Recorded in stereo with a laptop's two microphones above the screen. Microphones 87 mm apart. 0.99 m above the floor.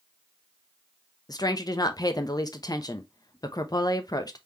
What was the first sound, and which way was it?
A woman speaking, 50° left (ahead or behind).